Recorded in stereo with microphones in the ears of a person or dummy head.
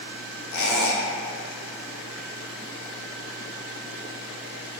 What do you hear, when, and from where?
0.5 s a squeak: 70° left (ahead or behind), 0.6 m